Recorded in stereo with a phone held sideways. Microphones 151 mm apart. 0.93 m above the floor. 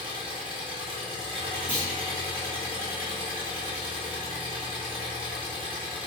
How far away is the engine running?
About 1.2 m.